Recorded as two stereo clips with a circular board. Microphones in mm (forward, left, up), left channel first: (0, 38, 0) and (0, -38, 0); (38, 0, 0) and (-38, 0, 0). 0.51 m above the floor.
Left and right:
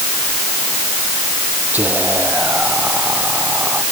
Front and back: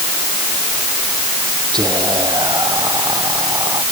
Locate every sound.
1.7 s whispering: 155° right